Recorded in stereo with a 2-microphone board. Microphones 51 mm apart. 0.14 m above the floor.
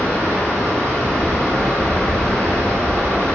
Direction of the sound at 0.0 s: 75° right (ahead or behind).